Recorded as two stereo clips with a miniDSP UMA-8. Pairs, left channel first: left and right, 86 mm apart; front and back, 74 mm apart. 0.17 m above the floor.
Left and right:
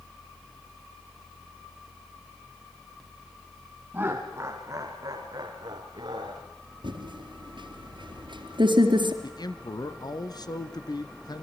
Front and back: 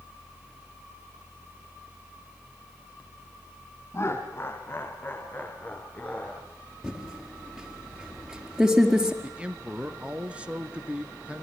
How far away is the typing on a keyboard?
About 4 m.